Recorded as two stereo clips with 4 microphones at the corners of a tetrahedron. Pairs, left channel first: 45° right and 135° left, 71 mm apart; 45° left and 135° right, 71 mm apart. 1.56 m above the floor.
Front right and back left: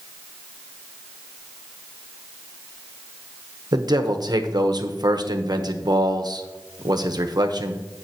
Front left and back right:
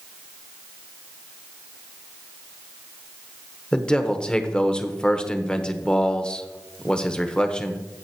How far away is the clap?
I don't hear a clap.